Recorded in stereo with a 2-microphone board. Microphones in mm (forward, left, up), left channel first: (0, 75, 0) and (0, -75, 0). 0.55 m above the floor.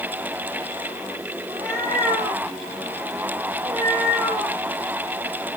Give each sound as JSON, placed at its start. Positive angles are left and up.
{"t": 1.5, "sound": "a cat meowing", "side_deg": -50, "distance_m": 8.5}